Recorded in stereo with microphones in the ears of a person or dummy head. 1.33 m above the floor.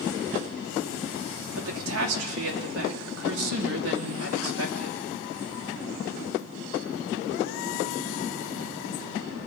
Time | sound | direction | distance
1.6 | a woman speaking | 80° right | 2.0 m